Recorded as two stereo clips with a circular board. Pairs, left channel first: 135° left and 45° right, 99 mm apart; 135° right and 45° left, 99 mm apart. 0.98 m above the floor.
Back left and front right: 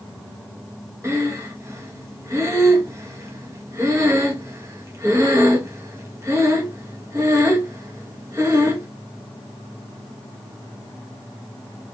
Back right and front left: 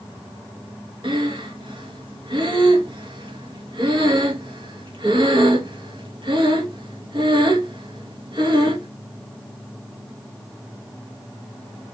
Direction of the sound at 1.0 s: 15° left.